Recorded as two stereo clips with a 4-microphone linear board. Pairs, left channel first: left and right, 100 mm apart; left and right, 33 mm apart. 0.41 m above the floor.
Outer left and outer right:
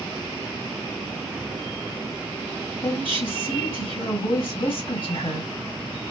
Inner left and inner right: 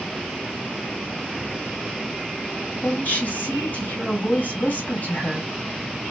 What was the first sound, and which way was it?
A woman speaking, 60° left (ahead or behind).